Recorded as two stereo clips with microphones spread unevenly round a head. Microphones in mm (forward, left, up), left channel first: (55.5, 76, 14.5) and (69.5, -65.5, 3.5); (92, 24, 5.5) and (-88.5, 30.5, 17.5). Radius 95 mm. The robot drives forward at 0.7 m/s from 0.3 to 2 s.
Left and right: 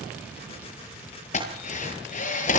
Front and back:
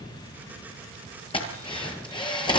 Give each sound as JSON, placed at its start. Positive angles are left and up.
{"t": 1.3, "sound": "a drill", "azimuth_deg": 60, "distance_m": 9.0}